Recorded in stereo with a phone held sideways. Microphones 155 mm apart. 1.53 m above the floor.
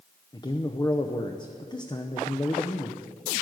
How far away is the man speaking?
About 0.8 m.